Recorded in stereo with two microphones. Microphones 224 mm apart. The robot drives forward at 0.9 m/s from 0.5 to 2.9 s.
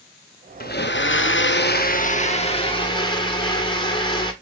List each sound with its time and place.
0.6 s a blender: 45° left (ahead or behind), 0.9 m; by 4.3 s 20° left (ahead or behind), 1.7 m